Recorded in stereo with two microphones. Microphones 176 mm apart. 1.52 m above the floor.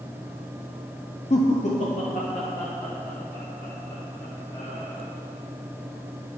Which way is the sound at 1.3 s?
45° left (ahead or behind).